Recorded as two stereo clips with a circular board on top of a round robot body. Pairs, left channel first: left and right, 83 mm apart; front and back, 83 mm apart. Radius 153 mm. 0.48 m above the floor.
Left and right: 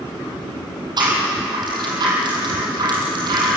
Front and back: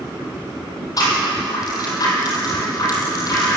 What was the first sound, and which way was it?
A rattle, 50° right.